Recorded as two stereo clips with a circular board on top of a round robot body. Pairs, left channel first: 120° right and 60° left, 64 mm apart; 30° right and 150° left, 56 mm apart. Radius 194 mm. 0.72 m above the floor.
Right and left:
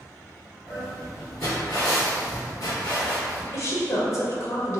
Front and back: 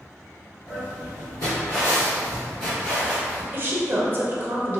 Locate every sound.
0.7 s footsteps: 15° right, 0.8 m; by 3.4 s 110° right, 1.4 m
3.5 s a woman speaking: 155° right, 0.8 m